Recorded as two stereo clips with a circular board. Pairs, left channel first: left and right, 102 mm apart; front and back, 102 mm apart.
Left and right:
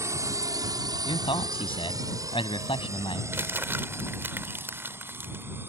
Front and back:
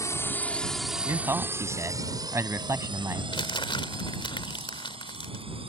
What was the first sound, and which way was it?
A drone, 45° right.